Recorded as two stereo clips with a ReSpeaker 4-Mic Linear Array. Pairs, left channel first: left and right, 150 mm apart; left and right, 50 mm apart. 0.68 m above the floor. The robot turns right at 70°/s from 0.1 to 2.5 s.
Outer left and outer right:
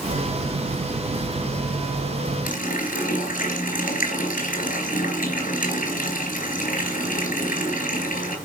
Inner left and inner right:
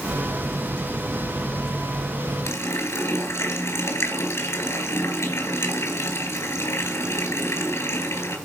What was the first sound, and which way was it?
A running tap, 75° left (ahead or behind).